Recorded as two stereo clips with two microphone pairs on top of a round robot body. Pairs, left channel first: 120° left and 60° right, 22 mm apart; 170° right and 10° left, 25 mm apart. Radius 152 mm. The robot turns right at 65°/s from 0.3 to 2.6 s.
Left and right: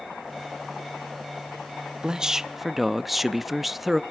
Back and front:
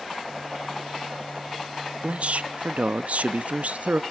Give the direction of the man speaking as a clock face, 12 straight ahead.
1 o'clock.